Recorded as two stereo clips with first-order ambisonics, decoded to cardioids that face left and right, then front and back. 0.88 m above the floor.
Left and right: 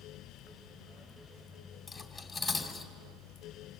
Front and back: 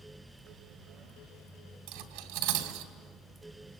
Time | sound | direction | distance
1.9 | cutlery clinking | 175° left | 3 m